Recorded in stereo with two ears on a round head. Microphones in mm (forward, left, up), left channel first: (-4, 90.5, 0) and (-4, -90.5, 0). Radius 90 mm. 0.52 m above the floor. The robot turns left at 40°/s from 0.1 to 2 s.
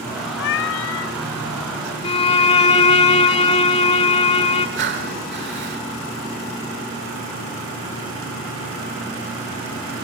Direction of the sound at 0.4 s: 115° left.